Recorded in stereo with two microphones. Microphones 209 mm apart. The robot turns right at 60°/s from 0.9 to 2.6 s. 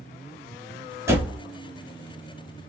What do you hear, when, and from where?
1.1 s a door slam: 15° right (ahead or behind), 1.0 m; by 1.4 s centre (ahead or behind), 1.0 m